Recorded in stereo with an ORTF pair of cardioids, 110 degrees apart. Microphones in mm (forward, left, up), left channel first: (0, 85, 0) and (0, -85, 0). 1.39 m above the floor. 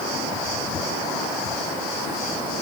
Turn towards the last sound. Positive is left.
No sound to turn to.